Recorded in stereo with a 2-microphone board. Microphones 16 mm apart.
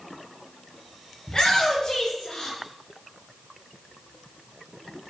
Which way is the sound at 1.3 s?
55° left (ahead or behind).